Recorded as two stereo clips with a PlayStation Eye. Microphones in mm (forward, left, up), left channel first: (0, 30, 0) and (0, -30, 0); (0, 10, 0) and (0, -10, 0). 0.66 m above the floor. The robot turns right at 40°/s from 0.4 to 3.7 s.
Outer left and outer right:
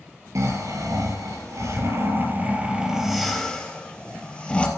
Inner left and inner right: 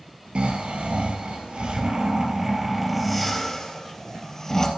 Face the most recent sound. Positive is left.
turn(degrees=20)